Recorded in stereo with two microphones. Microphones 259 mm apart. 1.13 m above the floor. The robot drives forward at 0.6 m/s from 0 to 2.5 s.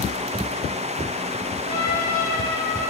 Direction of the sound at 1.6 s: 30° left (ahead or behind).